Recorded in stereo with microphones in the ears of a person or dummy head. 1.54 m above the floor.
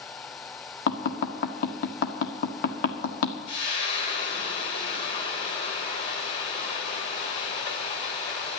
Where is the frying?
35° left (ahead or behind), 3 m.